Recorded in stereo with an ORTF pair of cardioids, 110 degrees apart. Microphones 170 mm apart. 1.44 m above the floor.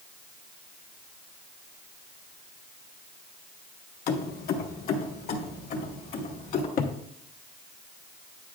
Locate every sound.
4.1 s keys jangling: 65° left, 1.1 m; by 6.7 s 60° left, 2.5 m
6.8 s a cupboard door: 60° left, 1.0 m